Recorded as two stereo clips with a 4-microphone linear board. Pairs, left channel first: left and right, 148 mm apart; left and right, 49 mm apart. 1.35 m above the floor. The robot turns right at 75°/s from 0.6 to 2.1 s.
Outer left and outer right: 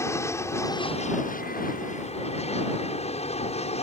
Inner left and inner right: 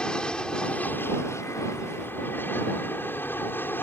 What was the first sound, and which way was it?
An aircraft, 20° left.